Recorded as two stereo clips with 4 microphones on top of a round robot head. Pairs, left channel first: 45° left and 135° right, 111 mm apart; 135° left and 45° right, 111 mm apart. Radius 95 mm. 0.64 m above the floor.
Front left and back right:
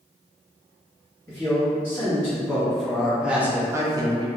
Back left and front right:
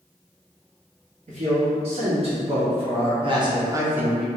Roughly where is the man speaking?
Ahead right.